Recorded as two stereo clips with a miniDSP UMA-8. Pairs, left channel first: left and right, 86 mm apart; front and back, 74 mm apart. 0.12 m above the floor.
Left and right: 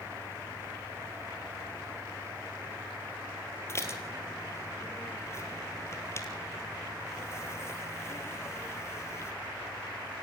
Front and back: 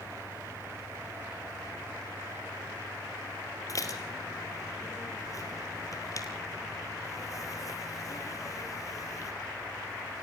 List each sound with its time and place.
3.7 s dishes clattering: 35° left, 2.5 m